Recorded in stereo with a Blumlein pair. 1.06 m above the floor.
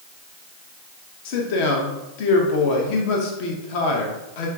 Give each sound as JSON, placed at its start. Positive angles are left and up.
{"t": 1.2, "sound": "a man speaking", "azimuth_deg": 45, "distance_m": 0.9}